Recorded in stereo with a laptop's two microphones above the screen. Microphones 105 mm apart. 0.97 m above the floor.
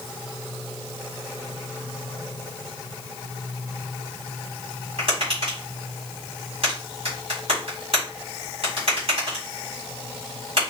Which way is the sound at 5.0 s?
65° right (ahead or behind).